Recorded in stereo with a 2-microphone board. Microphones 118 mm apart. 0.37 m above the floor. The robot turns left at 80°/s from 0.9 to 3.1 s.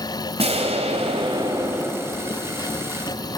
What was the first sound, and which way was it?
An explosion, 95° right.